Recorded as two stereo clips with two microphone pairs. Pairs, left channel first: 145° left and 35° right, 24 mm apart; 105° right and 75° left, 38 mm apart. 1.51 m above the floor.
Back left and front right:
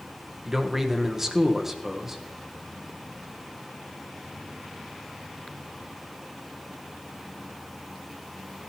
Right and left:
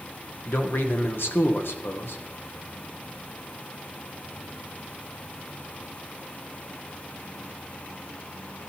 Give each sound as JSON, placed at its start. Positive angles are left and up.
{"t": 0.5, "sound": "a man speaking", "azimuth_deg": -110, "distance_m": 1.2}